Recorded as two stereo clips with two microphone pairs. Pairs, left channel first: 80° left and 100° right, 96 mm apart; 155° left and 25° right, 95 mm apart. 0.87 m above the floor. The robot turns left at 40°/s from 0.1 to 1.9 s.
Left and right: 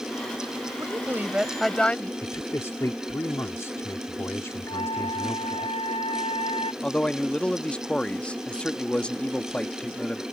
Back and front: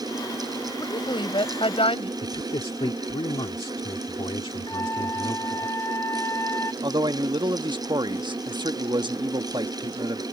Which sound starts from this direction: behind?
A woman speaking, at 0.8 s.